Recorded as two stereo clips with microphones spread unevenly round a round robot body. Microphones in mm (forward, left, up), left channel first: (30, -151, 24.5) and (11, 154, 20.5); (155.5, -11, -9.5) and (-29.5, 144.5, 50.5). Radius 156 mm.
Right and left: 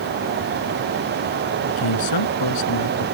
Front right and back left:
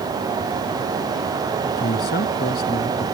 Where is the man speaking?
100° right.